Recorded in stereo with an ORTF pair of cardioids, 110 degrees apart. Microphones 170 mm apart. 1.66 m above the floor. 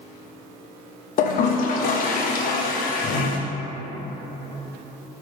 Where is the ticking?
I don't hear ticking.